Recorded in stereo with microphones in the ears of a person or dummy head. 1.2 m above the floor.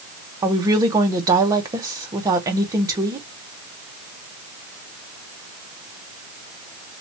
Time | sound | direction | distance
0.4 | a woman speaking | 20° right (ahead or behind) | 0.8 m